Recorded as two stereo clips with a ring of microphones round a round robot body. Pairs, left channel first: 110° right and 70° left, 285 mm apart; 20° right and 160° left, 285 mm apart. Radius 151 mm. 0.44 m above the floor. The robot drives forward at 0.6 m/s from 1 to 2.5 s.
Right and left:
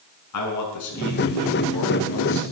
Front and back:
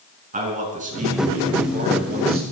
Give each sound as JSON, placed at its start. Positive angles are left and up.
{"t": 0.3, "sound": "a man speaking", "azimuth_deg": -140, "distance_m": 6.0}